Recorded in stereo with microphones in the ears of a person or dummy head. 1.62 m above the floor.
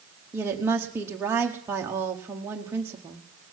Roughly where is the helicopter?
I don't hear a helicopter.